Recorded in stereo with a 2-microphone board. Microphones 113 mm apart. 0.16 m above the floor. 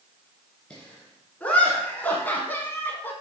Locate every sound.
0.7 s laughter: 10° left (ahead or behind), 2 m; by 3.1 s 15° left (ahead or behind), 1.3 m